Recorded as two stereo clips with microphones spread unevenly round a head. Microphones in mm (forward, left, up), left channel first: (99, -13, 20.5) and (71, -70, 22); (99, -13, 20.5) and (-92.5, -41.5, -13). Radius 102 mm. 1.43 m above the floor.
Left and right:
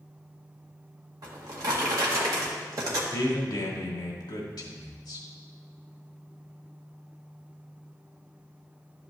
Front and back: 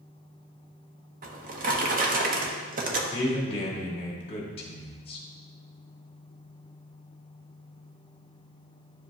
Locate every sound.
1.2 s a drawer: 125° right, 0.9 m
3.1 s a man speaking: 70° left, 1.6 m